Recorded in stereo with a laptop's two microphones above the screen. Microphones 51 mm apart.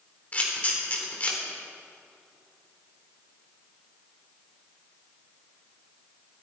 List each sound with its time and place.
0.3 s a camera shutter: 30° left (ahead or behind), 3 m